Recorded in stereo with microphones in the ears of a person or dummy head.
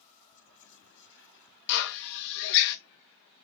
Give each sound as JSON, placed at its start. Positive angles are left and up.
{"t": 0.3, "sound": "whispering", "side_deg": 60, "distance_m": 1.0}
{"t": 1.7, "sound": "a drill", "side_deg": 60, "distance_m": 0.7}